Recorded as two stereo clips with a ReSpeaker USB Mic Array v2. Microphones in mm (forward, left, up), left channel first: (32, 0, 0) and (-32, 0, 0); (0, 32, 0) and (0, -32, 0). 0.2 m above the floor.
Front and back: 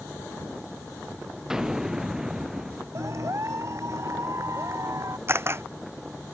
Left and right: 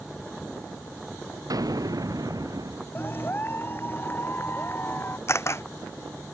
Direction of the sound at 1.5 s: 100° right.